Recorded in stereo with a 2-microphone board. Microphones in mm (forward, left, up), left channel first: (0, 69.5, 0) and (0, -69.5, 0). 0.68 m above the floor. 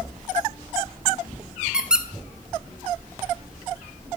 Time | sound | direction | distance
1.7 | a squeak | 5° right (ahead or behind) | 0.8 m